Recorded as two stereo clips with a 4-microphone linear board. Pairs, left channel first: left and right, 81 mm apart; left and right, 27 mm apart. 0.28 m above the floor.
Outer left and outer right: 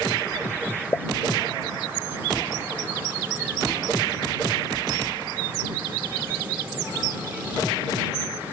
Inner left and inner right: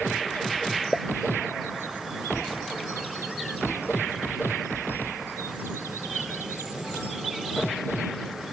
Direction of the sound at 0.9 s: 35° left (ahead or behind).